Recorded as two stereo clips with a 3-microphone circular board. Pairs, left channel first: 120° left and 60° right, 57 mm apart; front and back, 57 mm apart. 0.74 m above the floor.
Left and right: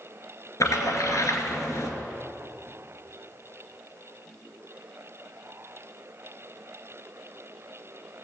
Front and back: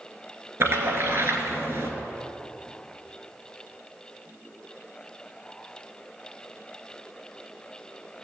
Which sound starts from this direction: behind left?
A splash, at 0.6 s.